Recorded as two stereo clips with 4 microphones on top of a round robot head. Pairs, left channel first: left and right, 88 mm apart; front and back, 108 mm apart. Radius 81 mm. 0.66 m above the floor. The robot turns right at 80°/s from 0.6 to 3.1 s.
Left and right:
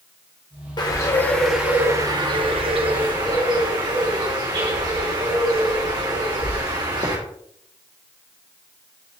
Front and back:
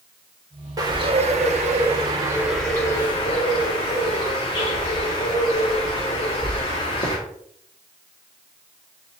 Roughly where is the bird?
Behind left.